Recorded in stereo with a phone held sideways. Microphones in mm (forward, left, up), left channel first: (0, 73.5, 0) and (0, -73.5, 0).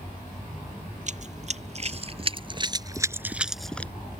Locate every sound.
1.1 s running footsteps: 55° right (ahead or behind); by 3.9 s 10° left (ahead or behind)